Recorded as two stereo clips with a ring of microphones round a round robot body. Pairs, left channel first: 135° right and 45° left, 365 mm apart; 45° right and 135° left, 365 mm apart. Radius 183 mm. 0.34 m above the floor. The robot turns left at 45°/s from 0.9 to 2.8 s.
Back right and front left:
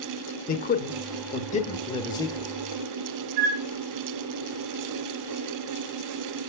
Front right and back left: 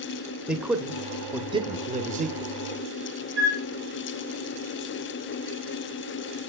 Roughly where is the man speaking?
Behind right.